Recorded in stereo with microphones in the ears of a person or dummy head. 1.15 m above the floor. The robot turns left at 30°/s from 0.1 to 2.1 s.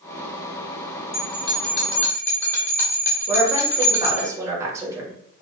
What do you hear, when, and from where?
1.1 s a bell: 45° left (ahead or behind), 1.8 m; by 4.3 s 20° left (ahead or behind), 1.8 m
3.3 s a woman speaking: 10° right (ahead or behind), 1.0 m